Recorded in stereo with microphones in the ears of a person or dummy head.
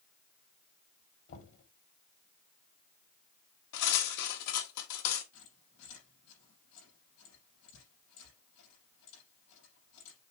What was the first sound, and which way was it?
Knocking, 70° left (ahead or behind).